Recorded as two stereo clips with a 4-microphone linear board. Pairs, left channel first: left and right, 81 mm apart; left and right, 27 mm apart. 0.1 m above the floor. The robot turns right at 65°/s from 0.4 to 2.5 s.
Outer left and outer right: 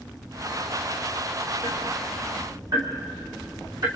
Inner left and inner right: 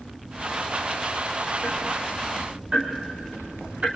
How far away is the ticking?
About 3.5 m.